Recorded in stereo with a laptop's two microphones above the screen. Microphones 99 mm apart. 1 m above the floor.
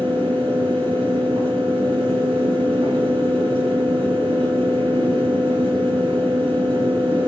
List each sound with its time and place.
0.0 s a fan: 75° right (ahead or behind), 4.5 m